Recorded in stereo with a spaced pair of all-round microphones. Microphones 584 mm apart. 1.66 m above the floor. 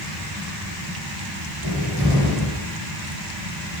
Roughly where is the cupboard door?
Right.